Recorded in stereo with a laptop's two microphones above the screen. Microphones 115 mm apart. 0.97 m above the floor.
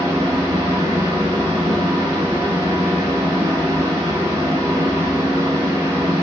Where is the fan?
30° right (ahead or behind), 0.7 m.